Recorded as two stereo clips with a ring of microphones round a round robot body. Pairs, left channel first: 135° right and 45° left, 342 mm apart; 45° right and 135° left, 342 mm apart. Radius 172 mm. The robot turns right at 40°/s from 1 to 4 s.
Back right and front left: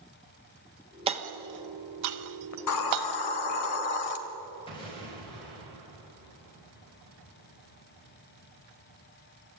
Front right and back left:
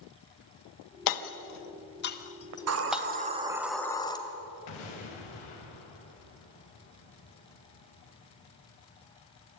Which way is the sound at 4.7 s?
60° right.